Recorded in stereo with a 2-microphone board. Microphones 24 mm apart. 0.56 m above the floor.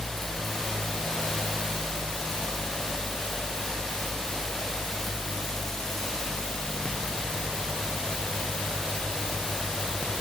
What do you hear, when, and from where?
Only background noise.